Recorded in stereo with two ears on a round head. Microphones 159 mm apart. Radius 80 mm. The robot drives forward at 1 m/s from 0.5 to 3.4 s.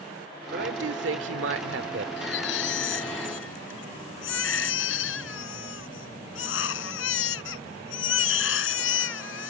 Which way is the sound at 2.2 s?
75° left (ahead or behind).